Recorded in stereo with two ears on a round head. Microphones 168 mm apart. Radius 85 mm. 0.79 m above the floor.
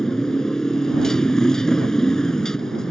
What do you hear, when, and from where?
0.0 s a motorcycle: 5° left (ahead or behind)